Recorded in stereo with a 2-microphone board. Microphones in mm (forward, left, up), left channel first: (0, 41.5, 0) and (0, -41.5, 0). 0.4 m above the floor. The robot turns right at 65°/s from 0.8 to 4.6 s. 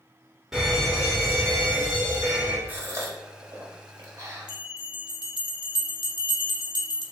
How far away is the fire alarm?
About 1.7 m.